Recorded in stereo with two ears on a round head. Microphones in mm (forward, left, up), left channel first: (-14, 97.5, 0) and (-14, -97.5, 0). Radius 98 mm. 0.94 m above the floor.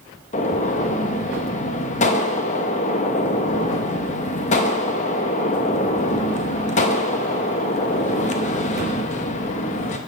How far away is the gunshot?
About 0.8 m.